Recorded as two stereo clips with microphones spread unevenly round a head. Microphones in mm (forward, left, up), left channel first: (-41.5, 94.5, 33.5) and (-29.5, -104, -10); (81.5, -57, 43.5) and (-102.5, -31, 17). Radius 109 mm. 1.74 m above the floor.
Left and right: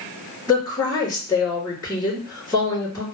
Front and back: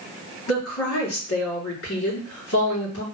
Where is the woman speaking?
15° left, 3 m.